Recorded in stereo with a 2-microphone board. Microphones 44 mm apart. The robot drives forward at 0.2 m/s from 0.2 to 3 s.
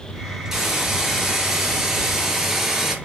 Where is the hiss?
5° right (ahead or behind), 1.8 m.